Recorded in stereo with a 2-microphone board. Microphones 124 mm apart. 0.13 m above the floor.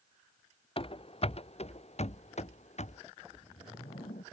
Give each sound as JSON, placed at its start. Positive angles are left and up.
{"t": 0.8, "sound": "running footsteps", "side_deg": 50}
{"t": 3.2, "sound": "a whoosh", "side_deg": 85}